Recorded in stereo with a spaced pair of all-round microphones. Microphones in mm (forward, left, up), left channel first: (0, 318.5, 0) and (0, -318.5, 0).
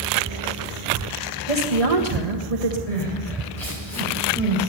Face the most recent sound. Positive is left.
turn(degrees=70)  # may be behind; listen again after turning